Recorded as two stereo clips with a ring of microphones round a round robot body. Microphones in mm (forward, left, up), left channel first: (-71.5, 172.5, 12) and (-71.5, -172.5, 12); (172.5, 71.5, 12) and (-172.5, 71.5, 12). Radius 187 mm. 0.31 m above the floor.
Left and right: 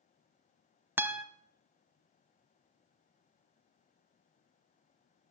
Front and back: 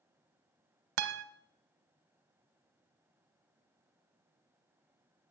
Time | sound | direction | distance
1.0 | a guitar | 175° right | 1.0 m